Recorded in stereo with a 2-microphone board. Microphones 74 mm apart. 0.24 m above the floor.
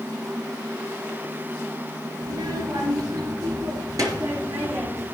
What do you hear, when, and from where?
2.2 s a child speaking: 70° right (ahead or behind), 3 m; by 5.0 s 45° right (ahead or behind), 4 m